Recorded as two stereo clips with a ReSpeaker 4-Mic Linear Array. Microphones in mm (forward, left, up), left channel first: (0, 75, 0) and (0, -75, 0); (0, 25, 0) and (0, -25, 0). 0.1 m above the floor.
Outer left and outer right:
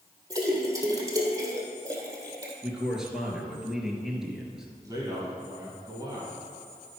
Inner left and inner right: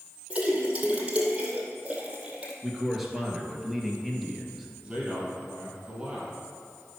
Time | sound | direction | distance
0.3 | a splash | 25° right (ahead or behind) | 2 m
2.6 | a man speaking | 5° right (ahead or behind) | 1.9 m
4.8 | a man speaking | 25° right (ahead or behind) | 2.5 m